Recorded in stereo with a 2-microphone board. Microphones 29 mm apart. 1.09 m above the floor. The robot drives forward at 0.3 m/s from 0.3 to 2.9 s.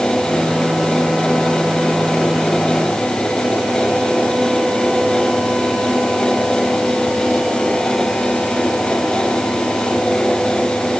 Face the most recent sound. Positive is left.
No sound to turn to.